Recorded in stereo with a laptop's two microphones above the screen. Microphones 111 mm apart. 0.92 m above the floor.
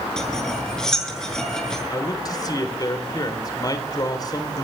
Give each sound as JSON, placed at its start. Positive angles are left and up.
{"t": 0.2, "sound": "cutlery clinking", "side_deg": 5, "distance_m": 7.0}
{"t": 1.9, "sound": "a man speaking", "side_deg": 35, "distance_m": 3.0}